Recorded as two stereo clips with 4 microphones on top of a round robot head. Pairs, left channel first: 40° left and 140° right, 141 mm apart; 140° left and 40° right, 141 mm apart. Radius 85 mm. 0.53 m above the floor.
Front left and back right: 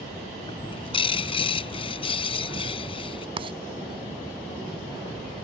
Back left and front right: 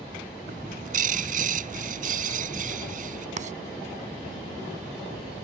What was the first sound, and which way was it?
A bird, 10° right.